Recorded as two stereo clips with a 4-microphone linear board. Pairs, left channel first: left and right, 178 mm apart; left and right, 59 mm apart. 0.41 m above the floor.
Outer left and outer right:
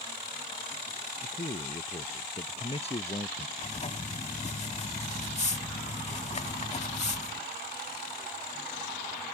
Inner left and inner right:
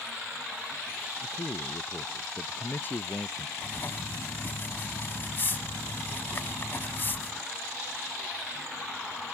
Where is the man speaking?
40° left (ahead or behind); by 3.5 s 35° left (ahead or behind).